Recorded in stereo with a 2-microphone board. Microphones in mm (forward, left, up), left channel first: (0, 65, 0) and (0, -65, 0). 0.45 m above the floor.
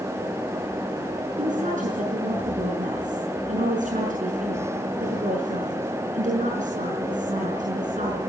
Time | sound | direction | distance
1.4 | a woman speaking | 80° right | 6 m